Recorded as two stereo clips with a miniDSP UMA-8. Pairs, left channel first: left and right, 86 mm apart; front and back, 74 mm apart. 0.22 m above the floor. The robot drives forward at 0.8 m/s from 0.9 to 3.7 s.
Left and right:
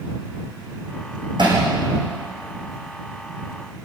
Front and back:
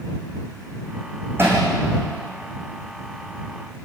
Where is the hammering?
120° right, 7 m; by 1.6 s 125° right, 7 m.